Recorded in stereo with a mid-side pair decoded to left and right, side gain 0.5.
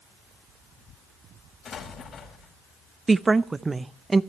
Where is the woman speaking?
20° right, 0.7 m.